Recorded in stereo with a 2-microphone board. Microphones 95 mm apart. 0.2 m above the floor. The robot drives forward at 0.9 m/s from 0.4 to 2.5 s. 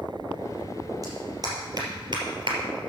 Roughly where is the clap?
Right.